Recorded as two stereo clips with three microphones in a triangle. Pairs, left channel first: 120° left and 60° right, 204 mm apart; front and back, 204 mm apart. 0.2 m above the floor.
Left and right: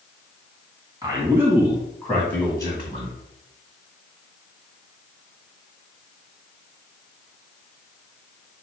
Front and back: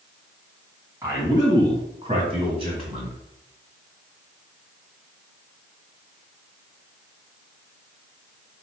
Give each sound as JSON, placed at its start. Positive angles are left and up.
{"t": 1.0, "sound": "a man speaking", "azimuth_deg": -115, "distance_m": 1.9}